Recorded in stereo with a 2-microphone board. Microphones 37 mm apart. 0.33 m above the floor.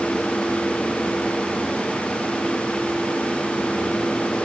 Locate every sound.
Only background noise.